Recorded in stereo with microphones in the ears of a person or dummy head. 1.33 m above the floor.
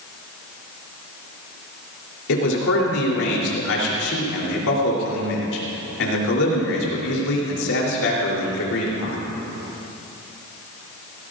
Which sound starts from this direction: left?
A man speaking, at 2.3 s.